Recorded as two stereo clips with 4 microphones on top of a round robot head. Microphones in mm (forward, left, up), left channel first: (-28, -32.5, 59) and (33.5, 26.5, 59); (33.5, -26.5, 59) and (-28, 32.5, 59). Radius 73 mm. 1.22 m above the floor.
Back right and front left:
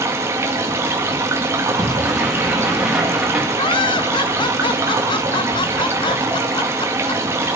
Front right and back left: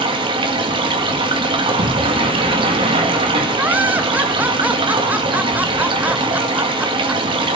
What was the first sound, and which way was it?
Running water, 105° left.